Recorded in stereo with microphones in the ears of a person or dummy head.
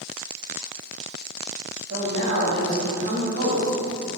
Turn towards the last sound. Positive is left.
turn(degrees=-60)  # may be behind; listen again after turning